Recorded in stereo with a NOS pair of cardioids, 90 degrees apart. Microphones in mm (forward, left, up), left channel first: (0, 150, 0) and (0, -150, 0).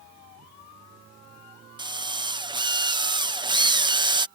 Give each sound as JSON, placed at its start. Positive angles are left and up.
{"t": 1.8, "sound": "a drill", "azimuth_deg": -15}